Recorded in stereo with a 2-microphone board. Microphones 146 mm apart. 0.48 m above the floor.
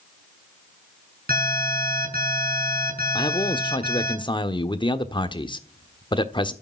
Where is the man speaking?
30° left (ahead or behind), 1.2 m.